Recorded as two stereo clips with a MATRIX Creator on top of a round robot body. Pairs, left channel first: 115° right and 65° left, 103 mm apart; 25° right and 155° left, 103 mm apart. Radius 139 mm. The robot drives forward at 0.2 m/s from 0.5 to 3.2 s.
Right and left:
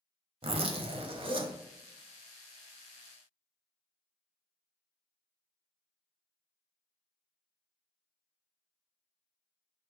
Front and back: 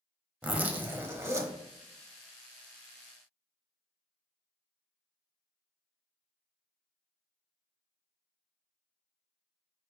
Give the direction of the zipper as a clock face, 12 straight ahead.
9 o'clock.